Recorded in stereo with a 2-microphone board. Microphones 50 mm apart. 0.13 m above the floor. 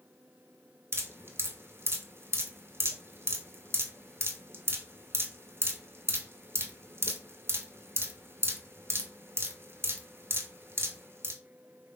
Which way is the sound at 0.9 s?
60° right (ahead or behind).